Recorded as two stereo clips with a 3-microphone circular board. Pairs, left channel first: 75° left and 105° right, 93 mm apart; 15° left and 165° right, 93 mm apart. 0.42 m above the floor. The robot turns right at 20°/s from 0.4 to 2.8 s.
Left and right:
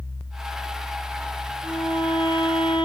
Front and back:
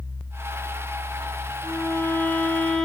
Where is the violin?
75° left, 9 m; by 2.9 s 100° left, 9 m.